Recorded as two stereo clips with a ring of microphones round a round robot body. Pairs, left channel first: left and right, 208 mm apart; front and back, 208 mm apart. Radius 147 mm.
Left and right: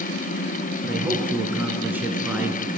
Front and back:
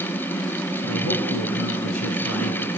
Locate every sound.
0.8 s a man speaking: 10° right, 5 m